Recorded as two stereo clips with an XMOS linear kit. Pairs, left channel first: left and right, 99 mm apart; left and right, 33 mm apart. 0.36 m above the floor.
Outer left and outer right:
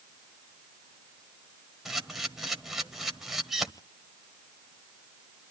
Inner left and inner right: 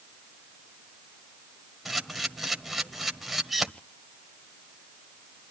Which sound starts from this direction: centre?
A camera shutter, at 1.9 s.